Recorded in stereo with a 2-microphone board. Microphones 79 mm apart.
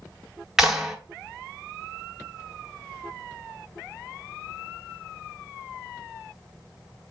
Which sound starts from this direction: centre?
A clap, at 0.6 s.